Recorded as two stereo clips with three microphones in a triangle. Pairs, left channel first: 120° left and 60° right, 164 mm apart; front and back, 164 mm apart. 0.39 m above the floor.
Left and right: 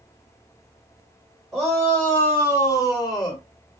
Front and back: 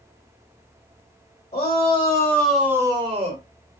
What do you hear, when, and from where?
1.5 s a shout: 30° left, 1.9 m; by 3.4 s 175° left, 1.7 m